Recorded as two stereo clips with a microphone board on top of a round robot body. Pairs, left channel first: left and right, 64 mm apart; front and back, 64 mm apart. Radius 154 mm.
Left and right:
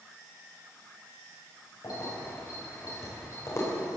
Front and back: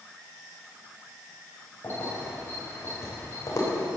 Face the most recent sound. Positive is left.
turn(degrees=40)